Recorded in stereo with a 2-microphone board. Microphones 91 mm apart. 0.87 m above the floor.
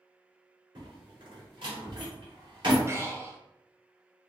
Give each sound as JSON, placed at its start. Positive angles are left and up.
{"t": 0.8, "sound": "a door slam", "side_deg": -65, "distance_m": 2.0}
{"t": 2.9, "sound": "breathing", "side_deg": -30, "distance_m": 0.6}